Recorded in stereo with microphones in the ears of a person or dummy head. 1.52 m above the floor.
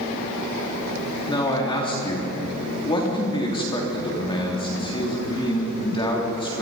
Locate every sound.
1.3 s a man speaking: 25° left (ahead or behind), 3.5 m